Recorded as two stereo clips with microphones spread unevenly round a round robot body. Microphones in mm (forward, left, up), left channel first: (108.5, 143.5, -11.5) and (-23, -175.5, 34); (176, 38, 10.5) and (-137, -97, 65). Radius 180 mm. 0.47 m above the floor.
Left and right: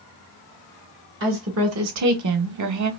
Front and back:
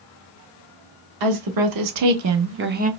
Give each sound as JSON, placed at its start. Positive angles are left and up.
{"t": 1.2, "sound": "a woman speaking", "azimuth_deg": -170, "distance_m": 1.3}